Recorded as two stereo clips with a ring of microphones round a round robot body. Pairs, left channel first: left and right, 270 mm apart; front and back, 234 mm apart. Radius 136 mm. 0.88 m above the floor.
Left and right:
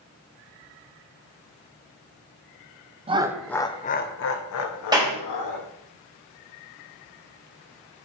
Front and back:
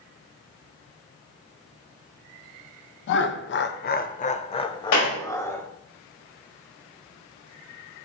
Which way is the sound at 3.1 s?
25° right.